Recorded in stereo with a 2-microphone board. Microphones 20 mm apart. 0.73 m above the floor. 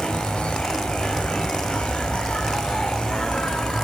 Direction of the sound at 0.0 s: 65° left (ahead or behind).